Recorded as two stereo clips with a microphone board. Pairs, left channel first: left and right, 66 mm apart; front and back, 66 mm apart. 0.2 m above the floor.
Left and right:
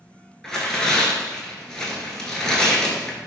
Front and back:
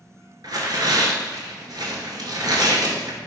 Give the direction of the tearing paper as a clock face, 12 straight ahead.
6 o'clock.